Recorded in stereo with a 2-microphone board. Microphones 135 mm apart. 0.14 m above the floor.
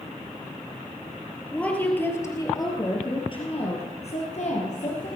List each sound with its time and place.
1.5 s a woman speaking: 5° left (ahead or behind), 3 m; by 5.1 s 65° left (ahead or behind), 4 m